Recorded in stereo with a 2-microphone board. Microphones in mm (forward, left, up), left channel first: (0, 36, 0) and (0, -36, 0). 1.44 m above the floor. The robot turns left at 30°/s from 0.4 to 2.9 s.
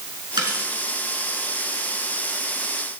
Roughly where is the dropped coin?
Right.